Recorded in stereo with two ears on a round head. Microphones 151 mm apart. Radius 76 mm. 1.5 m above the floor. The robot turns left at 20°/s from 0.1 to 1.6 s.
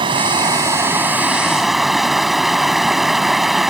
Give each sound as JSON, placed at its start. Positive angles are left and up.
{"t": 0.0, "sound": "running water", "azimuth_deg": -150}